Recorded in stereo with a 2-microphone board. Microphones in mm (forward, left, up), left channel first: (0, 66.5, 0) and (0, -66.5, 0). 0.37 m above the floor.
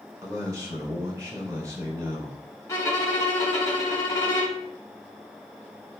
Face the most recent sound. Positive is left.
turn(degrees=25)  # may be behind; listen again after turning